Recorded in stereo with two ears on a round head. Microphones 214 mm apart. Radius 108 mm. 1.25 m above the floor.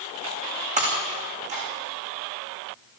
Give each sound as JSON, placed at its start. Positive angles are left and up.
{"t": 0.8, "sound": "breaking glass", "side_deg": -30, "distance_m": 7.5}